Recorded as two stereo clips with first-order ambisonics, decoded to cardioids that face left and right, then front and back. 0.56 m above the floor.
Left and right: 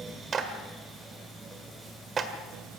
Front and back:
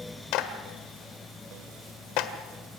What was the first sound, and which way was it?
A clap, 25° right.